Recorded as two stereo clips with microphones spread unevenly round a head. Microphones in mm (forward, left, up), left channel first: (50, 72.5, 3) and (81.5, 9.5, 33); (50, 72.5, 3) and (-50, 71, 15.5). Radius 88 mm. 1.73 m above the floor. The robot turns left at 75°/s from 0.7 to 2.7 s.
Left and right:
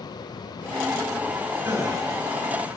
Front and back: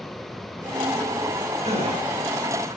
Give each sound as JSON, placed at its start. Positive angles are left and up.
{"t": 1.6, "sound": "a gasp", "azimuth_deg": -130, "distance_m": 8.0}